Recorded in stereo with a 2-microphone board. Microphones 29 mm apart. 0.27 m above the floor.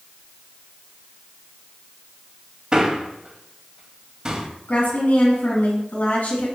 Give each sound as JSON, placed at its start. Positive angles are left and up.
{"t": 2.7, "sound": "a man speaking", "side_deg": -25, "distance_m": 1.1}
{"t": 4.7, "sound": "a woman speaking", "side_deg": 60, "distance_m": 2.5}